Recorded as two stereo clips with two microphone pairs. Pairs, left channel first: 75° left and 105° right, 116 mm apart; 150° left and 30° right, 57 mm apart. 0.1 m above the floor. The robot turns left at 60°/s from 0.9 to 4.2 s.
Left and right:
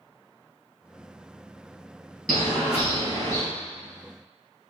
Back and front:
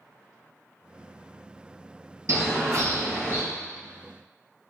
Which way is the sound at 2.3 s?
15° right.